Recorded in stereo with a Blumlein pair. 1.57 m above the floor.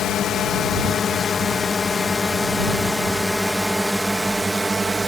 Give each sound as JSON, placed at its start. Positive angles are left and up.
{"t": 0.0, "sound": "a drone", "azimuth_deg": 30}